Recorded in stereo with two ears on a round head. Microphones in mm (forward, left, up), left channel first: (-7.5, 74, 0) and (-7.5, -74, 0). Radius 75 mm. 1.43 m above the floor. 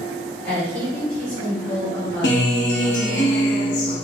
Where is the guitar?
70° left (ahead or behind), 1.1 m.